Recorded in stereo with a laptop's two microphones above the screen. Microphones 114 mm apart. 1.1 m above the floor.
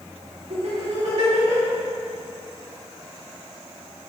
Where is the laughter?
75° right (ahead or behind), 2 m.